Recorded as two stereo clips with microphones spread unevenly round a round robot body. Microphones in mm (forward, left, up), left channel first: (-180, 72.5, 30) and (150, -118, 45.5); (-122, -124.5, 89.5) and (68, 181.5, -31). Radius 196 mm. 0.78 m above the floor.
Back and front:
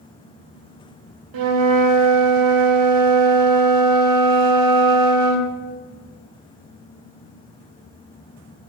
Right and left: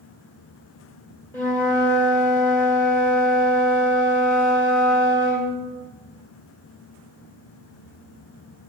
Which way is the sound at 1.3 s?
50° right.